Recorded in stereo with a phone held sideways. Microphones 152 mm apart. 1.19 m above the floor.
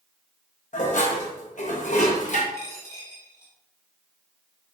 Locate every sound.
0.7 s dishes clattering: 60° left (ahead or behind), 1.0 m
2.5 s a dropped coin: 25° left (ahead or behind), 1.3 m